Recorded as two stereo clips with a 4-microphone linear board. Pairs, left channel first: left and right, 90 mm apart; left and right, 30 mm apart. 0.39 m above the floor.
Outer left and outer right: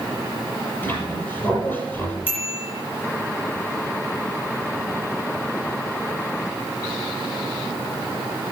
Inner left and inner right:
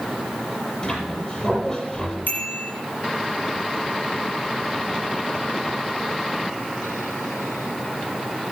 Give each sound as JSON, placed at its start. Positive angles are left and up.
{"t": 0.8, "sound": "a squeak", "side_deg": 20, "distance_m": 6.0}
{"t": 2.3, "sound": "a bicycle bell", "side_deg": 85, "distance_m": 6.5}